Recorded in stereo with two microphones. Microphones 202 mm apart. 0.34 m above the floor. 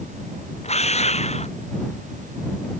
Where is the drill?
30° left (ahead or behind).